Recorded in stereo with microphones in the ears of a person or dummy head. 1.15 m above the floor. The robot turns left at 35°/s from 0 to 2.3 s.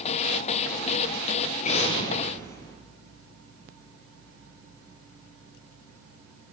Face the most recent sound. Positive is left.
turn(degrees=15)  # may be behind; listen again after turning